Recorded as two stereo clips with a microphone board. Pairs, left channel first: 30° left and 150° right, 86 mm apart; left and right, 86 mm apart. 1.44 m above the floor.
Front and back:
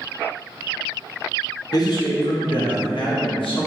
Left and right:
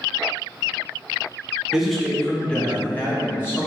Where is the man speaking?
10° right, 0.8 m; by 3.7 s 25° left, 1.6 m.